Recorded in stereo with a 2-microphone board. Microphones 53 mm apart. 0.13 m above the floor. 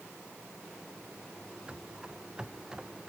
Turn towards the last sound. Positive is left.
turn(degrees=-10)  # may be behind; listen again after turning